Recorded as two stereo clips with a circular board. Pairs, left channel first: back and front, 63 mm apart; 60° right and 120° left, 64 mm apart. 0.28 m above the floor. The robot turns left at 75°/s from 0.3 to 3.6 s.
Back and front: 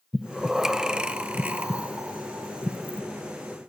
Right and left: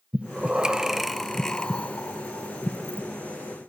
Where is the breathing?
95° left, 0.5 m; by 3.0 s 110° right, 0.5 m.